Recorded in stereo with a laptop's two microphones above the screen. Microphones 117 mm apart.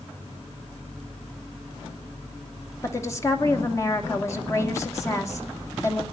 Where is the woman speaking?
25° left (ahead or behind), 2.5 m.